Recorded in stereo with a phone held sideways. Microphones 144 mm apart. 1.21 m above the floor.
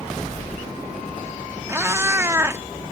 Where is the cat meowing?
20° right (ahead or behind).